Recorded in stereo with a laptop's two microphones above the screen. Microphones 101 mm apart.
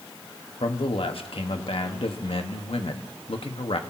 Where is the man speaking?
65° left (ahead or behind), 1.4 m.